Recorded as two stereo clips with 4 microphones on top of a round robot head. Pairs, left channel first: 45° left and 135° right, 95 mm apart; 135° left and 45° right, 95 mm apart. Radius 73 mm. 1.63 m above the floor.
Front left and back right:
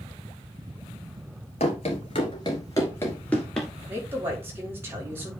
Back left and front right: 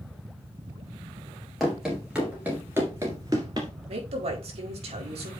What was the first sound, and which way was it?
Running footsteps, 45° left.